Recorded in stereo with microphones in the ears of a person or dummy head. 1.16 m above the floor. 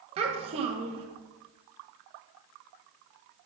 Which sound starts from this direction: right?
A child speaking, at 0.2 s.